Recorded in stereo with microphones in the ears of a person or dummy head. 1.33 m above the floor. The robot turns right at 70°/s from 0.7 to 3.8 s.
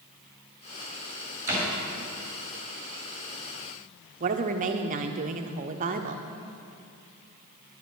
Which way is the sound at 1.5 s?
45° right (ahead or behind).